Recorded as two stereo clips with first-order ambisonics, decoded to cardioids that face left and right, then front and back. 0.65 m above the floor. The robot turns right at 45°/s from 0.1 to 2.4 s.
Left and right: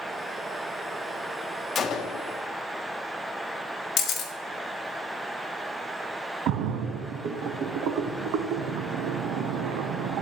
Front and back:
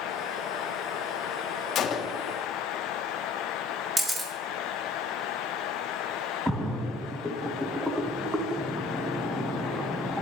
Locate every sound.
1.8 s a gunshot: 35° left, 0.6 m; by 2.2 s 55° left, 0.6 m
4.0 s a camera shutter: 110° left, 1.4 m
6.5 s a splash: 90° right, 0.7 m